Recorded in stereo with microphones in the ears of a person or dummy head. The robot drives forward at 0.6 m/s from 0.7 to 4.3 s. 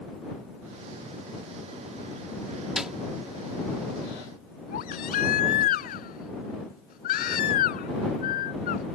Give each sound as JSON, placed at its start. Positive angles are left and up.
{"t": 2.8, "sound": "a snare drum", "side_deg": -5}
{"t": 4.7, "sound": "a baby crying", "side_deg": 55}